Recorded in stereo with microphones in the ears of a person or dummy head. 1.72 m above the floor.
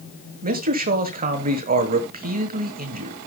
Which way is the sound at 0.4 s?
45° right (ahead or behind).